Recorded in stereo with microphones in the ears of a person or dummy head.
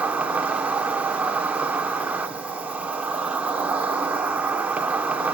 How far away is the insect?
About 1.6 m.